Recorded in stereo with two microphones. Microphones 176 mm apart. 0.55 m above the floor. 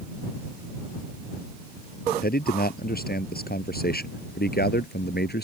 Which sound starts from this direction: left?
A man speaking, at 2.2 s.